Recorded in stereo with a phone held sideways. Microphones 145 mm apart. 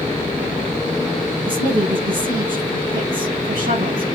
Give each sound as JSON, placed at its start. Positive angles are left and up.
{"t": 1.4, "sound": "a woman speaking", "side_deg": -75, "distance_m": 7.0}